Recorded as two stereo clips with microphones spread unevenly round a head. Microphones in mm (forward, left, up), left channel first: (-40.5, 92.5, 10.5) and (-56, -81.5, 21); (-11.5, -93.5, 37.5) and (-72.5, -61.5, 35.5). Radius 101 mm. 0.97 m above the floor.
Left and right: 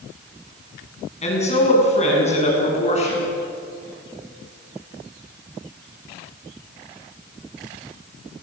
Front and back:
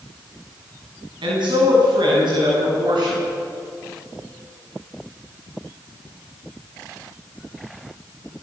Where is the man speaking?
135° left, 7 m.